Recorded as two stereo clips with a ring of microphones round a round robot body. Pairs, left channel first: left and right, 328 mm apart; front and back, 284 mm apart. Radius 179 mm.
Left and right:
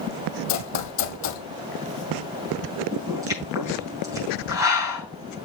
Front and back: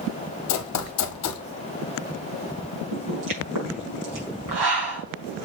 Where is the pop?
170° right, 5 m.